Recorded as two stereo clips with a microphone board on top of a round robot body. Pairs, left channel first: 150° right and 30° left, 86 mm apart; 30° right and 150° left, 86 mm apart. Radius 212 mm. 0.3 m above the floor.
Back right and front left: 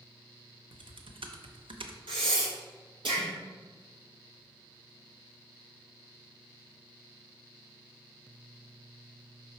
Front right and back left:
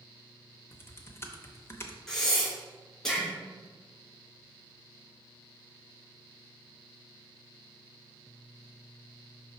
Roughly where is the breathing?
Ahead left.